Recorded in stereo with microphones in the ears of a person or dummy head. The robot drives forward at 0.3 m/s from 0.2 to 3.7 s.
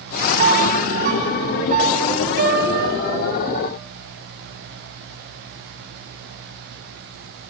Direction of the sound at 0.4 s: 50° right (ahead or behind).